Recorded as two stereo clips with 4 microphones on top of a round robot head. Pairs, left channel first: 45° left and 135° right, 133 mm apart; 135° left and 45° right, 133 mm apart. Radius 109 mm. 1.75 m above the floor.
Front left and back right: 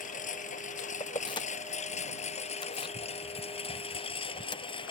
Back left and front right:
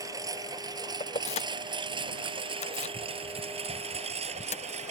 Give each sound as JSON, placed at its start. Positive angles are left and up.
{"t": 0.0, "sound": "a lawn mower", "azimuth_deg": 20}
{"t": 1.0, "sound": "keys jangling", "azimuth_deg": 100}